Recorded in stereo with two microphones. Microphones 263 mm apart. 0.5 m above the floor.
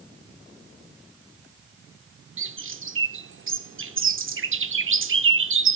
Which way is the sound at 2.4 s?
50° right (ahead or behind).